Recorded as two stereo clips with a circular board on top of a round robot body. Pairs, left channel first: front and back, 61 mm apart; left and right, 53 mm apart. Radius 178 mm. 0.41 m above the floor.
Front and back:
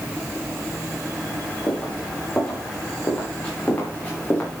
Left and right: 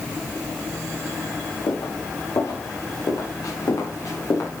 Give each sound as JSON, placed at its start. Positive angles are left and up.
{"t": 1.7, "sound": "footsteps", "azimuth_deg": 75, "distance_m": 9.5}